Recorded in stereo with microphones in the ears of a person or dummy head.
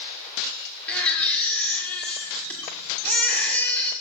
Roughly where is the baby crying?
Centre.